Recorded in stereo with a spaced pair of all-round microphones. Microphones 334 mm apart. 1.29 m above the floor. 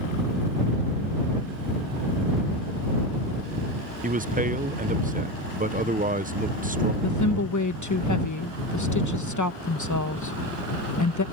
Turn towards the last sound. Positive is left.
turn(degrees=60)  # may be behind; listen again after turning